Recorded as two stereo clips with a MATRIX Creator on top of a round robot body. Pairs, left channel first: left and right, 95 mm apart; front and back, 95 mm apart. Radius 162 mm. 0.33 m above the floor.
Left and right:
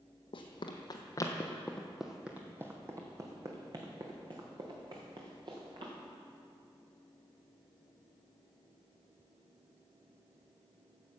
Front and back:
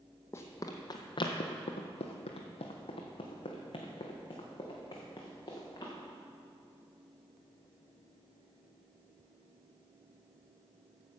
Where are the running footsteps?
65° left, 1.0 m; by 5.9 s 55° right, 2.5 m.